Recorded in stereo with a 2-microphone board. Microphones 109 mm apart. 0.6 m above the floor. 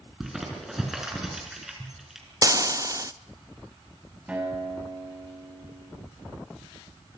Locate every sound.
0.2 s crumpling: 5° right (ahead or behind), 5 m
2.4 s frying: 30° right (ahead or behind), 0.5 m
4.3 s a guitar: 10° right (ahead or behind), 5 m